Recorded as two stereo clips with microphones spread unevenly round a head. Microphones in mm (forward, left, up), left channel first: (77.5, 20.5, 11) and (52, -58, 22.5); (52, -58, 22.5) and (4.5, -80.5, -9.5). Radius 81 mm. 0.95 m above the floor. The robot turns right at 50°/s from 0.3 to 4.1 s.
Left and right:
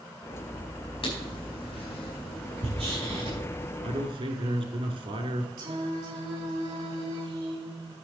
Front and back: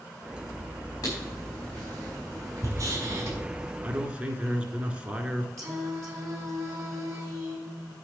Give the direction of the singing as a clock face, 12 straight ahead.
4 o'clock.